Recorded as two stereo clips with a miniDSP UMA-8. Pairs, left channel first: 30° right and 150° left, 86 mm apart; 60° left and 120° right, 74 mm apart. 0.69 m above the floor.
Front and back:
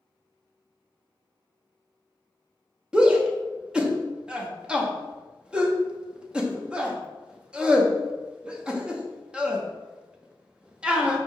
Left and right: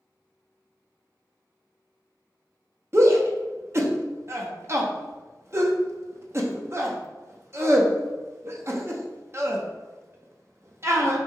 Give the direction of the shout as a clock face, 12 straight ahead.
5 o'clock.